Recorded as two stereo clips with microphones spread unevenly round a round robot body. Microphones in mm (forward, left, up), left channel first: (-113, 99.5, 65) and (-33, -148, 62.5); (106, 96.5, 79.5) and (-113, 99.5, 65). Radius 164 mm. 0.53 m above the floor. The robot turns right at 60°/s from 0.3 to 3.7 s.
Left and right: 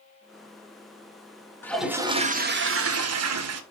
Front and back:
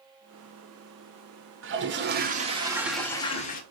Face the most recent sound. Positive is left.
turn(degrees=-45)